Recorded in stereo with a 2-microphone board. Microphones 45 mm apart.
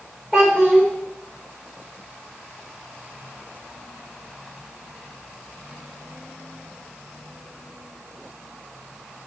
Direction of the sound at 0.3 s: 10° right (ahead or behind).